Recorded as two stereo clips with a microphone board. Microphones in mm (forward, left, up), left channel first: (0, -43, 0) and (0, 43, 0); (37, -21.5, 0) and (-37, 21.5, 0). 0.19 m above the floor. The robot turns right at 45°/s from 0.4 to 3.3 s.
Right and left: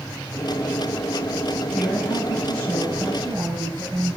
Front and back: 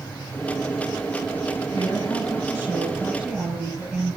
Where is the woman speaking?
10° right, 4 m; by 4.2 s 60° left, 4 m.